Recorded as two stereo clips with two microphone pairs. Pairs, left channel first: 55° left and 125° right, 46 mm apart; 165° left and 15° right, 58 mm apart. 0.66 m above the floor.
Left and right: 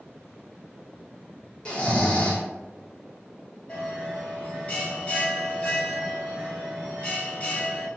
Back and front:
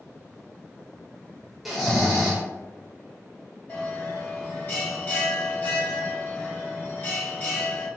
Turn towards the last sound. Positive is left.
turn(degrees=115)